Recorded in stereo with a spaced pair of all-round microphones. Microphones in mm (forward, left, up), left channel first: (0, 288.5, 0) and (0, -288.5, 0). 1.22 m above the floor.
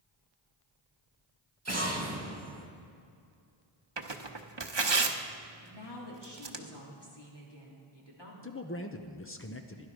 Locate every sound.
1.6 s an explosion: 25° right (ahead or behind), 1.8 m
4.0 s tearing paper: 45° right (ahead or behind), 0.9 m
5.6 s a woman speaking: 45° left (ahead or behind), 3 m
8.4 s a man speaking: 25° left (ahead or behind), 0.7 m